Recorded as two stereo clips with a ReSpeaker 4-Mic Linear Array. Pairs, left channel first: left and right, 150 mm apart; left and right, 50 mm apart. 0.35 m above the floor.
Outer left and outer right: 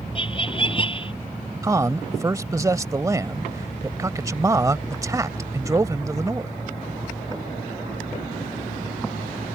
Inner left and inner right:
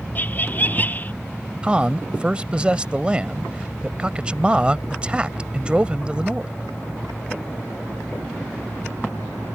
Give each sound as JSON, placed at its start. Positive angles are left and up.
{"t": 0.1, "sound": "laughter", "side_deg": 35}
{"t": 1.6, "sound": "a man speaking", "side_deg": -20}